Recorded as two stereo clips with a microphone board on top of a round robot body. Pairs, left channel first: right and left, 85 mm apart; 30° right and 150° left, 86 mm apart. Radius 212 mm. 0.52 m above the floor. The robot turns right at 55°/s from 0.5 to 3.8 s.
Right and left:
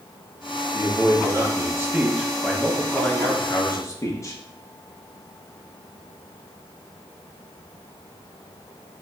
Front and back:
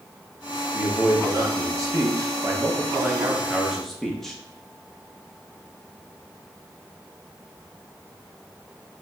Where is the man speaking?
75° left, 1.3 m; by 4.3 s 115° right, 1.3 m.